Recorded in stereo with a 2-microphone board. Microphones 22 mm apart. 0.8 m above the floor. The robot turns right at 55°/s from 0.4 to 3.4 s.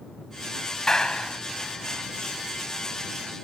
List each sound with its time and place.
0.9 s a clap: 30° left (ahead or behind); by 1.4 s 55° left (ahead or behind)